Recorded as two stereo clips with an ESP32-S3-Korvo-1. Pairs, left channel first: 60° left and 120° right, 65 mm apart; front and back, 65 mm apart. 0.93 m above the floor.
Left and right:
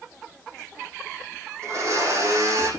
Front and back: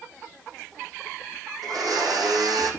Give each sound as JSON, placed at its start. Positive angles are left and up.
{"t": 1.6, "sound": "a blender", "azimuth_deg": -165, "distance_m": 7.5}